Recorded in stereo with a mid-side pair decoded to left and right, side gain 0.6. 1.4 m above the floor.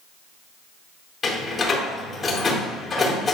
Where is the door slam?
30° left, 3.5 m.